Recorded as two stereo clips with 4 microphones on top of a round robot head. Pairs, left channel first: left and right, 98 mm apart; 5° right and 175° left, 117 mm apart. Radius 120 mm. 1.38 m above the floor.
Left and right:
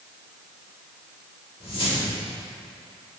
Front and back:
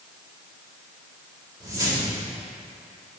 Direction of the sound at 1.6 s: 115° left.